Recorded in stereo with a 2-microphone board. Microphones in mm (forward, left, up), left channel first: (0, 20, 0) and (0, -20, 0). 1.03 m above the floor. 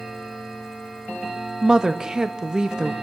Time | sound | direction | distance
1.6 | a woman speaking | 20° right (ahead or behind) | 1.1 m